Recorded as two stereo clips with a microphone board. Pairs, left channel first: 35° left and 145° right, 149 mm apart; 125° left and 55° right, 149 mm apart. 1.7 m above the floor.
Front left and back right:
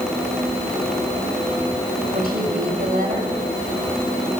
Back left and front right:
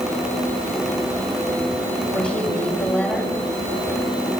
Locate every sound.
2.1 s a woman speaking: 155° right, 9 m